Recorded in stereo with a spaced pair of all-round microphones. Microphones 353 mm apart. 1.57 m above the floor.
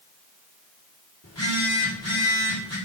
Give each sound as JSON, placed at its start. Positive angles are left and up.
{"t": 1.2, "sound": "a phone buzzing", "side_deg": 45, "distance_m": 3.5}